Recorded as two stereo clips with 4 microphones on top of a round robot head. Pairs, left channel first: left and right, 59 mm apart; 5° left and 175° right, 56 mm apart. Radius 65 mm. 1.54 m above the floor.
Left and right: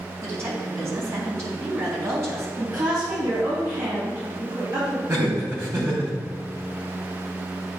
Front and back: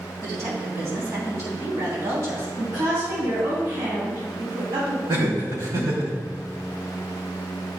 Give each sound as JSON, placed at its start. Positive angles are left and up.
{"t": 0.2, "sound": "a woman speaking", "azimuth_deg": -135, "distance_m": 3.0}
{"t": 2.6, "sound": "a woman speaking", "azimuth_deg": -130, "distance_m": 3.0}
{"t": 5.1, "sound": "laughter", "azimuth_deg": -145, "distance_m": 3.0}